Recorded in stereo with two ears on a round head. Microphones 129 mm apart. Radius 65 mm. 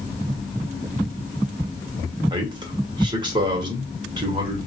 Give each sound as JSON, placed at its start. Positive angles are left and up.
{"t": 2.3, "sound": "a man speaking", "side_deg": -30, "distance_m": 1.0}